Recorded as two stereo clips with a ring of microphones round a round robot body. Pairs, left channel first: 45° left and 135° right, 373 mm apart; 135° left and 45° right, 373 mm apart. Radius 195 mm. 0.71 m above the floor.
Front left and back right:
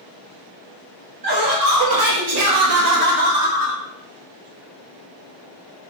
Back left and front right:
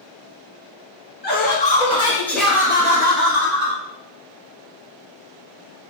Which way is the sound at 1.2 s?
160° right.